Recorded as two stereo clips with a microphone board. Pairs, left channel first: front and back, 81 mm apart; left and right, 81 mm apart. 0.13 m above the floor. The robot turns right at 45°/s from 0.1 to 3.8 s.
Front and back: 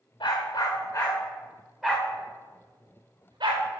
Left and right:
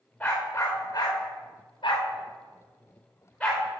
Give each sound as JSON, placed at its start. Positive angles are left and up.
{"t": 0.2, "sound": "a dog barking", "azimuth_deg": 25, "distance_m": 4.5}